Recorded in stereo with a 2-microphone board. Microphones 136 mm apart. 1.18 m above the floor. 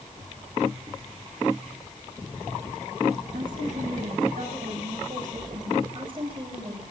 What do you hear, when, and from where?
3.3 s a woman speaking: 80° right, 8 m; by 5.8 s 65° right (ahead or behind), 5 m
5.9 s a woman speaking: 40° right (ahead or behind), 8 m